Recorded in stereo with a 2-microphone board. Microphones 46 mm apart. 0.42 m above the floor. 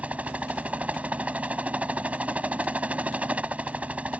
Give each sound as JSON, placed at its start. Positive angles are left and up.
{"t": 0.0, "sound": "a helicopter", "side_deg": -30}